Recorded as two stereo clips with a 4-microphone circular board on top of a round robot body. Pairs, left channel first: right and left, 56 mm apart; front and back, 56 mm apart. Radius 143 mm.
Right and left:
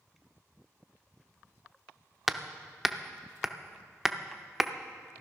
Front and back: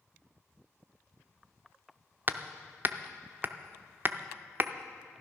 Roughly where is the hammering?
Behind.